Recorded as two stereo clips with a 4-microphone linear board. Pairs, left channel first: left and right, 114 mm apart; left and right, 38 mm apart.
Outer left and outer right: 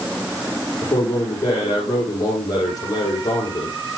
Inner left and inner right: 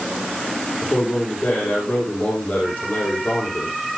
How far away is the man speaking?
About 7 m.